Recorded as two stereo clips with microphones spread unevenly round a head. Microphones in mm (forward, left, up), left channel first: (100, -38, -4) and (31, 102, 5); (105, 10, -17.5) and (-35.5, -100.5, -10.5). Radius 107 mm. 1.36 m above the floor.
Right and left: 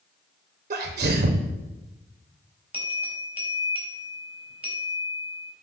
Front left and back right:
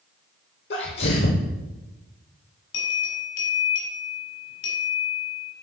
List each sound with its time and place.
0.7 s a sneeze: 80° left, 0.8 m
2.7 s a bell: 35° left, 3.5 m